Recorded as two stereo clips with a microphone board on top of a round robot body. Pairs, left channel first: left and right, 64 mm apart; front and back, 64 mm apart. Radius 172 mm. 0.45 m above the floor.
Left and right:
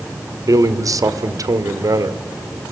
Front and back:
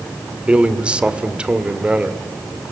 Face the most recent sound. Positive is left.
turn(degrees=-105)